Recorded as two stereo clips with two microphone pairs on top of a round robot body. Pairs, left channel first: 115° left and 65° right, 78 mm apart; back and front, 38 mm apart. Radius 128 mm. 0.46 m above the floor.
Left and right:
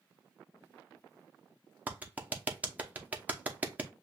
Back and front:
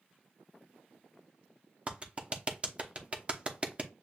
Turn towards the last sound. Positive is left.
turn(degrees=-70)